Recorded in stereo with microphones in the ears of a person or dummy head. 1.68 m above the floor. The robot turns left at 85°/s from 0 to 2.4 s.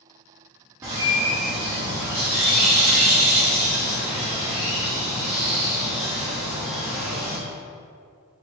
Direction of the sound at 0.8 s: 15° right (ahead or behind).